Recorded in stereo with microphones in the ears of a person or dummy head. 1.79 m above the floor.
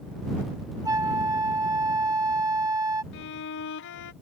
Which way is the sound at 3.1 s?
65° left (ahead or behind).